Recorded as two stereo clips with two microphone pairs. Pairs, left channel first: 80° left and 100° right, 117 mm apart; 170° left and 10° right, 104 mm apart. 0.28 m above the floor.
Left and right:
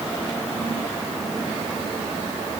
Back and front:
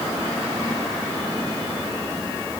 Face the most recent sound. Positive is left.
No sound to turn to.